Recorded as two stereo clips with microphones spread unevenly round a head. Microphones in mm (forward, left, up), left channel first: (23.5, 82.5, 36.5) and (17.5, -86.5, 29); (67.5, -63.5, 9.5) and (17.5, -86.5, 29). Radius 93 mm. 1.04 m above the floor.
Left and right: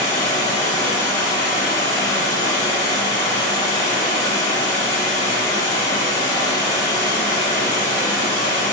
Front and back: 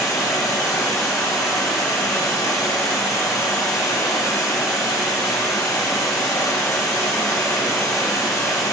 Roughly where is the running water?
Ahead left.